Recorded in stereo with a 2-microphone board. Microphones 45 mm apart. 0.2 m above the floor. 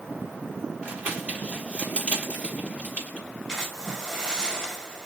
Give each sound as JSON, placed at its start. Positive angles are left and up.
{"t": 0.8, "sound": "crumpling", "side_deg": -35, "distance_m": 5.0}
{"t": 3.5, "sound": "a splash", "side_deg": -15, "distance_m": 2.5}